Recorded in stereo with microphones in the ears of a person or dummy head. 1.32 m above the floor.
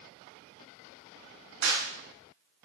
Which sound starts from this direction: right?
A clap, at 1.6 s.